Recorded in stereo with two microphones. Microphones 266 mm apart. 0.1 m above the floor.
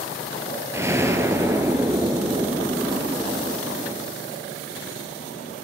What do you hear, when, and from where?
0.7 s an explosion: 10° right (ahead or behind), 0.5 m